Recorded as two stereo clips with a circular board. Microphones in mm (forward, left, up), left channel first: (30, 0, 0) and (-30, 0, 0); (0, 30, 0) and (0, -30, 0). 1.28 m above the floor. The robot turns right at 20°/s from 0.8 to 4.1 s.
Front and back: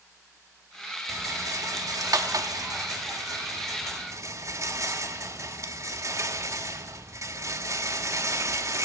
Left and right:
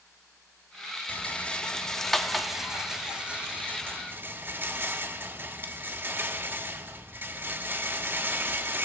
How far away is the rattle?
About 1.6 m.